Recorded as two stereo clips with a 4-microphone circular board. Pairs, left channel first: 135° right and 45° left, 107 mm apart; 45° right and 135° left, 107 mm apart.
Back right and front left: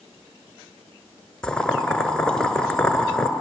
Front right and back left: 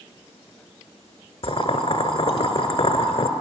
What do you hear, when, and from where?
1.4 s boiling: 55° right, 1.4 m